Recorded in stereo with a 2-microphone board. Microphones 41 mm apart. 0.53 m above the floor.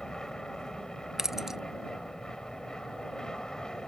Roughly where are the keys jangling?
Centre.